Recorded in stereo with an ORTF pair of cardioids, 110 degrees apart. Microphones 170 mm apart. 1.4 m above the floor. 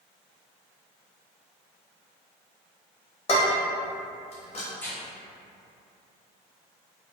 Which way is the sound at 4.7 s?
10° left.